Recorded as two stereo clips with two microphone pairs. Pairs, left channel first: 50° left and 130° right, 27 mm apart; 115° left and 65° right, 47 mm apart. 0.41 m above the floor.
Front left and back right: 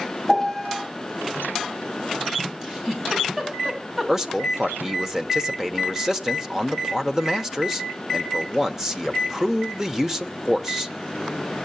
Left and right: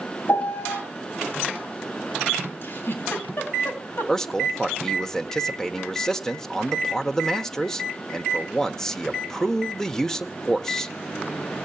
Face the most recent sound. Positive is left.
turn(degrees=175)